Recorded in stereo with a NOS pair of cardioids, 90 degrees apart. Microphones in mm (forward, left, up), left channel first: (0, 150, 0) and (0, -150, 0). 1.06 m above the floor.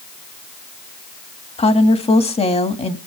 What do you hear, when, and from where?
1.6 s a woman speaking: 20° left, 2 m